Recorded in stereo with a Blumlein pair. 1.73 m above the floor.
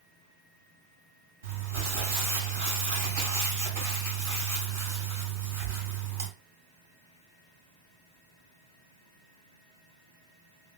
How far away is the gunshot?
I don't hear a gunshot.